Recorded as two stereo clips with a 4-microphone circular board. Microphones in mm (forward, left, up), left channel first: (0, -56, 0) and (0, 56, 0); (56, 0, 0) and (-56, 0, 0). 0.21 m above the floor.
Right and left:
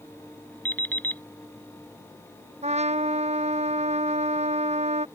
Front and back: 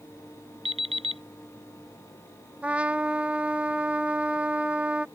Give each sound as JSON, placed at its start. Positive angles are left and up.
{"t": 0.7, "sound": "an alarm clock", "azimuth_deg": -165}
{"t": 2.6, "sound": "a trumpet", "azimuth_deg": 100}